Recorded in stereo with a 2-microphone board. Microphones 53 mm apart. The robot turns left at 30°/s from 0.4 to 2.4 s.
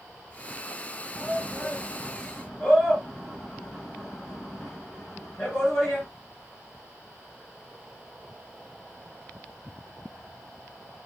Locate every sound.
1.1 s a shout: 50° left (ahead or behind), 4 m; by 6.1 s 15° left (ahead or behind), 4 m